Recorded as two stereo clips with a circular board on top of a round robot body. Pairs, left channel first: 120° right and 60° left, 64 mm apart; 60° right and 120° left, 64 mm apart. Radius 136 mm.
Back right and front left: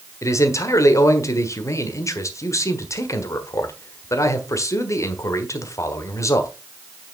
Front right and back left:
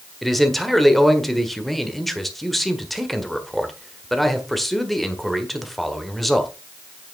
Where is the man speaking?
145° right, 1.6 m.